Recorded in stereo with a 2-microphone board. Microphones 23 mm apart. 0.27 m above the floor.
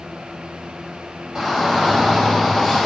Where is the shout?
30° right (ahead or behind), 1.7 m; by 2.9 s 15° right (ahead or behind), 1.8 m.